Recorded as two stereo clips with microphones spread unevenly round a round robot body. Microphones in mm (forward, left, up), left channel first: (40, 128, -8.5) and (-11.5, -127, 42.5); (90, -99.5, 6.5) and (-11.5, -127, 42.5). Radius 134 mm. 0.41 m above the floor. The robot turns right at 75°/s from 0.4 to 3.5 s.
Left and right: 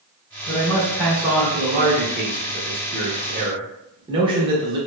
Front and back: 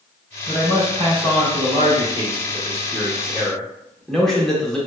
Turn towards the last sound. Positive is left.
turn(degrees=-25)